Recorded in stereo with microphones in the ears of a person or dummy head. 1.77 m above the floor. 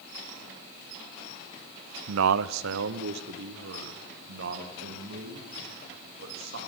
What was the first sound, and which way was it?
A man speaking, 85° right.